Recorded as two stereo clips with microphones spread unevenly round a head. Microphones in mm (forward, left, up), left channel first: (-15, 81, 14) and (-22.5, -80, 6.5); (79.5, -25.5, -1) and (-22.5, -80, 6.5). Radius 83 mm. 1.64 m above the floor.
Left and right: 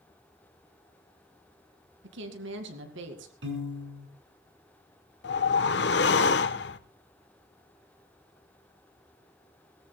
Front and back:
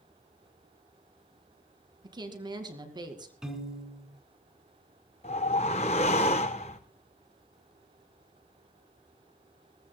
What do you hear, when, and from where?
2.0 s a woman speaking: 100° right, 2 m
3.4 s a piano: 70° right, 5 m
5.2 s a whoosh: 75° left, 0.9 m